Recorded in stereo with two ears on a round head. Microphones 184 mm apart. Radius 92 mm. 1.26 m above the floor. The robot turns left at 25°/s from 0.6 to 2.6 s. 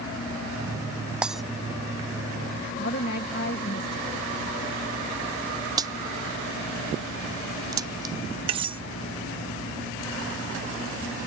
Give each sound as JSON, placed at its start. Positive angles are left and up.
{"t": 1.2, "sound": "breaking glass", "side_deg": -5}
{"t": 2.8, "sound": "a woman speaking", "side_deg": 50}
{"t": 5.8, "sound": "a crack", "side_deg": -20}
{"t": 8.5, "sound": "cutlery clinking", "side_deg": -25}